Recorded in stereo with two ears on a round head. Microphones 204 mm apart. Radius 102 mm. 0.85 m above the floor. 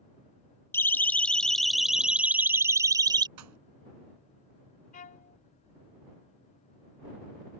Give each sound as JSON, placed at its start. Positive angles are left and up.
{"t": 0.7, "sound": "a siren", "side_deg": 10}
{"t": 3.4, "sound": "a pop", "side_deg": -85}
{"t": 4.9, "sound": "a violin", "side_deg": 35}